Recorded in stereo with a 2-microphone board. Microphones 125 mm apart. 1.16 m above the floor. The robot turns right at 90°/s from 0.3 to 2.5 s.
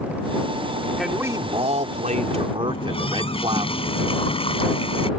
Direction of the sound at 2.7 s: 50° left (ahead or behind).